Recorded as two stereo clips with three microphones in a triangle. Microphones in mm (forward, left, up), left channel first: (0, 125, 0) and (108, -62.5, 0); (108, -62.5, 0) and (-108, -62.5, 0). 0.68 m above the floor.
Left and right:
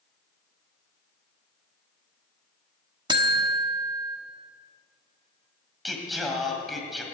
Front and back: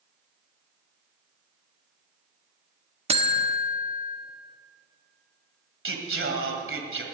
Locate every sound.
3.1 s a buzzer: 125° right, 1.3 m
5.8 s singing: 150° right, 1.8 m